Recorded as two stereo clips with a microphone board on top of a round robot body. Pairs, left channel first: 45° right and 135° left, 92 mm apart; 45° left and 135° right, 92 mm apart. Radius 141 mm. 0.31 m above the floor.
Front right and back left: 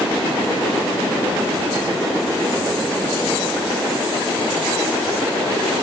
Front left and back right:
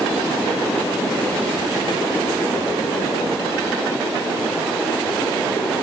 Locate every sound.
Only background noise.